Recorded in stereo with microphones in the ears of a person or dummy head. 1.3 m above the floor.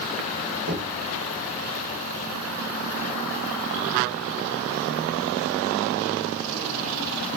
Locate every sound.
0.7 s knocking: 50° right (ahead or behind), 9.5 m